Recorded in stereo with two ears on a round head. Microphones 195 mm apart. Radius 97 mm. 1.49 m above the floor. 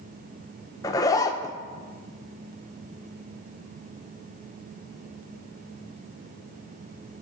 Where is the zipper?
15° left (ahead or behind), 0.6 m.